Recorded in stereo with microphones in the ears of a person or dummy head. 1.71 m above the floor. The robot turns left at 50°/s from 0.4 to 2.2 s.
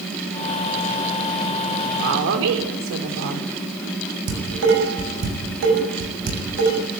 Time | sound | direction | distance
2.0 | a woman speaking | 60° right (ahead or behind) | 6 m
4.3 | dishes clattering | 60° right (ahead or behind) | 7.5 m